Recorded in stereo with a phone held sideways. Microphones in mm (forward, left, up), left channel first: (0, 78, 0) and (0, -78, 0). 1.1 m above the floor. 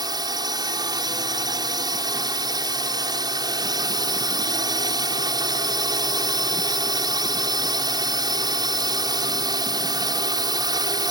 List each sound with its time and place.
0.0 s a drone: 25° right (ahead or behind)